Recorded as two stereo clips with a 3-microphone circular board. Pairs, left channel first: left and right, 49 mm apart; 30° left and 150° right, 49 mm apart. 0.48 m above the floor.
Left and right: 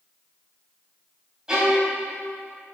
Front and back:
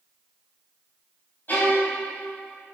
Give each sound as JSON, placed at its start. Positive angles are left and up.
{"t": 1.5, "sound": "a violin", "azimuth_deg": -15, "distance_m": 4.0}